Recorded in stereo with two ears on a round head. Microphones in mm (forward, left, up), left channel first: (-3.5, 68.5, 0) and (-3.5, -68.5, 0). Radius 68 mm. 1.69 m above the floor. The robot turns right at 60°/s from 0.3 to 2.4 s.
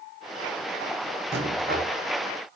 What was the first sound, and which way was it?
A rattle, 85° right.